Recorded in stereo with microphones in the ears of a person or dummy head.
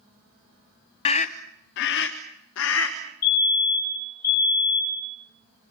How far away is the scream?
About 0.7 m.